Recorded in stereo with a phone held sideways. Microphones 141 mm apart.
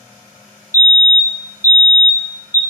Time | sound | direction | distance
0.7 | a fire alarm | 20° left (ahead or behind) | 1.0 m